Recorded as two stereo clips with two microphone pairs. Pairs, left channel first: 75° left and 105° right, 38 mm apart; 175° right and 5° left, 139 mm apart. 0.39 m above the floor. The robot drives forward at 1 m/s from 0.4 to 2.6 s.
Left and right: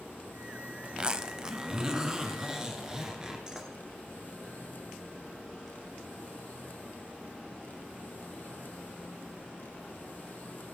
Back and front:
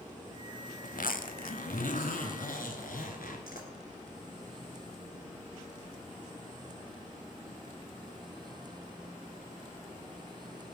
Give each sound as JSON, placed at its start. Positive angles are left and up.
{"t": 0.8, "sound": "a zipper", "azimuth_deg": -165, "distance_m": 0.5}